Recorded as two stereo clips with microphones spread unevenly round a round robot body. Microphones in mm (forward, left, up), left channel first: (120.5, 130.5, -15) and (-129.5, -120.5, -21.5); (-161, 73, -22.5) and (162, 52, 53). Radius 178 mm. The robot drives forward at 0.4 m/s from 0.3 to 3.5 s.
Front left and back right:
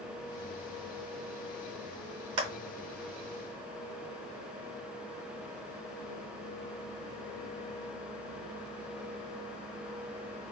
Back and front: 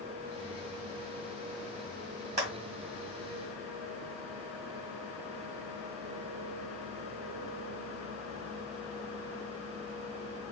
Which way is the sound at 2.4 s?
80° right.